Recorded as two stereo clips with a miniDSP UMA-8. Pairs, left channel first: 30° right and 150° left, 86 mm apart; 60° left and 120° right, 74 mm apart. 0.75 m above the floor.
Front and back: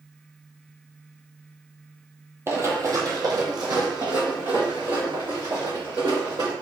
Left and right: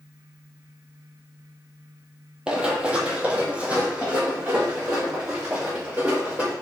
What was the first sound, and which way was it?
Running footsteps, 175° left.